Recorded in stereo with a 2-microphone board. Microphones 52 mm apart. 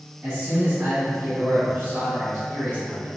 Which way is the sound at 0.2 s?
30° right (ahead or behind).